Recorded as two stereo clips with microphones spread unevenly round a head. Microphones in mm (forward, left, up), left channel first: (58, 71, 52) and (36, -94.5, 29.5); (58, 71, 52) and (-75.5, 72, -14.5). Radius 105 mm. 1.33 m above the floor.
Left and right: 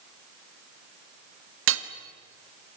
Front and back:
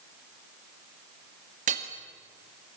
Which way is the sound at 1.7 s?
120° right.